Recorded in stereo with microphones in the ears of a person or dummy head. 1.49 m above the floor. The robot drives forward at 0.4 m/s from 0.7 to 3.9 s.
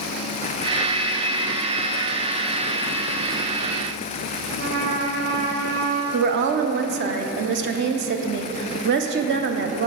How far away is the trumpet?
About 1.2 m.